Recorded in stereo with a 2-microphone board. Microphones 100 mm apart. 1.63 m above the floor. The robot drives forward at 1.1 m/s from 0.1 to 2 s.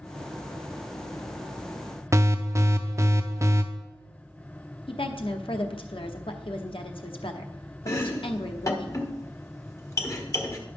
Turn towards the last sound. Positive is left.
turn(degrees=30)  # may be behind; listen again after turning